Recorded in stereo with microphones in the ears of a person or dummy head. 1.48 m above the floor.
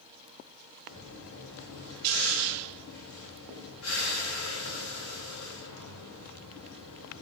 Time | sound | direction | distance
0.9 | breathing | 85° left | 1.8 m